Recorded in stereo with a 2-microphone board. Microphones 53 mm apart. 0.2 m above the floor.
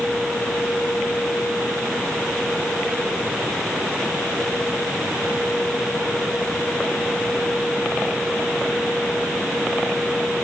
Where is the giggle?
No giggle in this recording.